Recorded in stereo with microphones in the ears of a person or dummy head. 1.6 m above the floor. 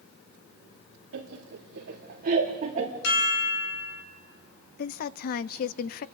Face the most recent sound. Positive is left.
turn(degrees=55)  # may be behind; listen again after turning